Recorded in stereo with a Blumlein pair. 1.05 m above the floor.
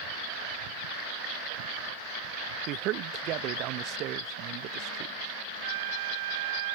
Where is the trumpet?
55° right.